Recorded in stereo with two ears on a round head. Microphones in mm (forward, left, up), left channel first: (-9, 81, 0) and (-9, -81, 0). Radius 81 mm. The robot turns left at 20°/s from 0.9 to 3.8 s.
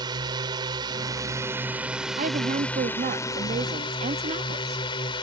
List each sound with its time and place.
0.0 s a drone: 155° right; by 5.2 s 150° left
2.2 s a woman speaking: 85° right; by 4.8 s 120° right